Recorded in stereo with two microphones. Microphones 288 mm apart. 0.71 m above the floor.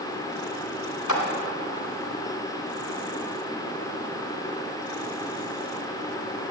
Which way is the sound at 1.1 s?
70° left (ahead or behind).